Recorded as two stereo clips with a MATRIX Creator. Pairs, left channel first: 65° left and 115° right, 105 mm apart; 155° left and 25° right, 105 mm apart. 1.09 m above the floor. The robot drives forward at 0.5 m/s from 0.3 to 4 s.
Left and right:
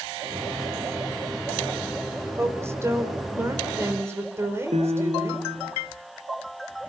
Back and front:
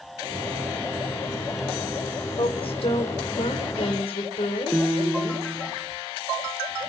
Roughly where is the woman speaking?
Behind.